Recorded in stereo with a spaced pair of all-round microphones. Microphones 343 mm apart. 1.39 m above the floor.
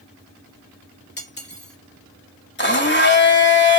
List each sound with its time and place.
1.2 s cutlery clinking: 30° left (ahead or behind), 1.7 m
2.6 s a blender: 30° left (ahead or behind), 1.4 m